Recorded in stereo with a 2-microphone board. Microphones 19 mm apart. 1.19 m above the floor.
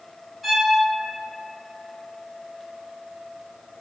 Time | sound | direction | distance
0.4 | a violin | 5° right (ahead or behind) | 1.4 m